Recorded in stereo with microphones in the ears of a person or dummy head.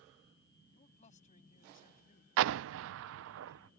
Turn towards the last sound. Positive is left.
turn(degrees=-80)